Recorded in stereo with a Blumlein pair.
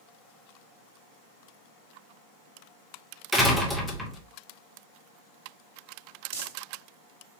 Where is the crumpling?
50° right, 1.4 m.